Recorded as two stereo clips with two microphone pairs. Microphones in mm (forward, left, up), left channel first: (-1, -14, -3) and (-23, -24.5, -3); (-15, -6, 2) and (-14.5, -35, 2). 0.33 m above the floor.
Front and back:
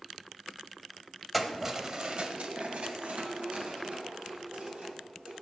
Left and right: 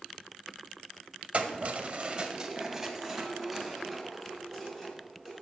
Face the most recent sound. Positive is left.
turn(degrees=175)